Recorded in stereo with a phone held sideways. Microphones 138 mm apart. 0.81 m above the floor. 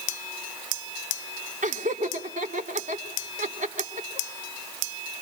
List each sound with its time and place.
1.6 s laughter: 65° right (ahead or behind), 3 m